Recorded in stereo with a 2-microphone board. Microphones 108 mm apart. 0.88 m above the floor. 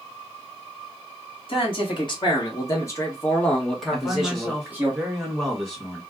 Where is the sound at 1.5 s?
50° left (ahead or behind), 1.5 m; by 4.9 s 20° right (ahead or behind), 1.3 m.